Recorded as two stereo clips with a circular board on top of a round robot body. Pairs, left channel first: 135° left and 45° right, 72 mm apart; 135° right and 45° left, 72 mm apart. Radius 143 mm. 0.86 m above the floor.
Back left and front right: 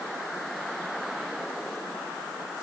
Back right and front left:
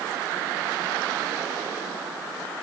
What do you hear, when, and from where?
Only background noise.